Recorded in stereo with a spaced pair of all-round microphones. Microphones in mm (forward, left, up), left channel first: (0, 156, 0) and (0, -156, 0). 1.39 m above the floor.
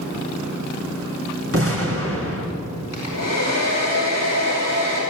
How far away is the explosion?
About 4 m.